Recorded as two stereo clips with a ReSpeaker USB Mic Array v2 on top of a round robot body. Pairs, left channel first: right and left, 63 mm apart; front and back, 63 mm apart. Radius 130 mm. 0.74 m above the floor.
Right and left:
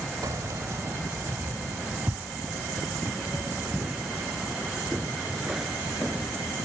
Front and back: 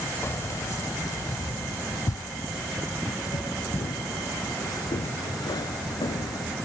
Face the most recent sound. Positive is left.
turn(degrees=5)